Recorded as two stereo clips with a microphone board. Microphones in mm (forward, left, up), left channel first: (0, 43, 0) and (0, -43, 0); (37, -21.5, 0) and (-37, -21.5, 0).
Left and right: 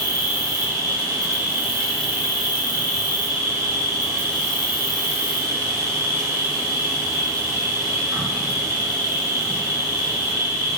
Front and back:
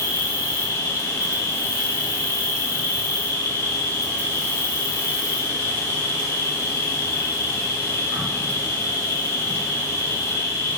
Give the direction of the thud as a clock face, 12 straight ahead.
I don't hear a thud.